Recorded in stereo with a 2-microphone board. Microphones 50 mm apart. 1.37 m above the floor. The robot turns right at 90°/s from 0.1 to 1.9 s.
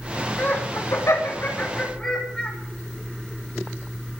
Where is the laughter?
25° left (ahead or behind), 8.5 m; by 2.5 s 20° left (ahead or behind), 8.5 m.